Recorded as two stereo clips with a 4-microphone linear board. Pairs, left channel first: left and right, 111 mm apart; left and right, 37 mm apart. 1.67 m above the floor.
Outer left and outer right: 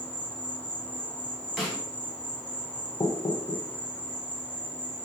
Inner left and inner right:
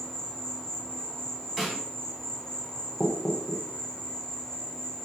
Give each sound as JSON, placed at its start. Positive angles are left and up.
{"t": 0.0, "sound": "an insect", "side_deg": 10, "distance_m": 0.7}
{"t": 1.6, "sound": "a snare drum", "side_deg": 0, "distance_m": 1.1}
{"t": 3.0, "sound": "knocking", "side_deg": 50, "distance_m": 0.5}